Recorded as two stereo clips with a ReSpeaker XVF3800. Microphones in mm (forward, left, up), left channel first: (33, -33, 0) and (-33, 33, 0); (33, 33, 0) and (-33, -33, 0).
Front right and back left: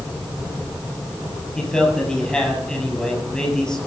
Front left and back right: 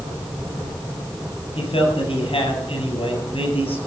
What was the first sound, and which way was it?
A man speaking, 40° left.